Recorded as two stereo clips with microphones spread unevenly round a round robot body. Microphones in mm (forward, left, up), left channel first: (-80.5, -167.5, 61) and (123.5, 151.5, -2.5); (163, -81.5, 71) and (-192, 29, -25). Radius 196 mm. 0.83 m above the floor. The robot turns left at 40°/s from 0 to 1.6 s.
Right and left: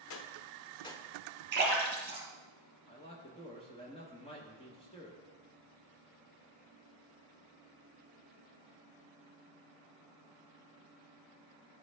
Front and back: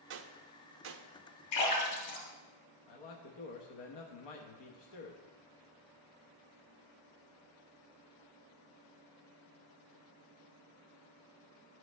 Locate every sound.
0.1 s a gunshot: 175° right, 0.5 m; by 1.1 s 145° left, 0.5 m
1.5 s a splash: 10° right, 3 m
2.9 s a man speaking: 45° right, 0.9 m